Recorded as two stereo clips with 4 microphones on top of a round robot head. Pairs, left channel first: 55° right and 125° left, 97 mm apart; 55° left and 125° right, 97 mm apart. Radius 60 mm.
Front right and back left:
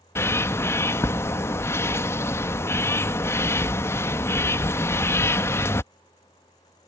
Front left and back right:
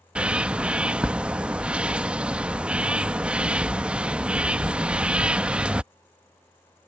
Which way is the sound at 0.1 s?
60° right.